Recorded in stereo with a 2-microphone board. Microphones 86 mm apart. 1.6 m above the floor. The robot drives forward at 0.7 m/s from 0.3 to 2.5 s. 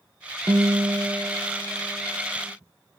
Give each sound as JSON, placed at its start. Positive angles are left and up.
{"t": 0.5, "sound": "a guitar", "side_deg": -45, "distance_m": 1.0}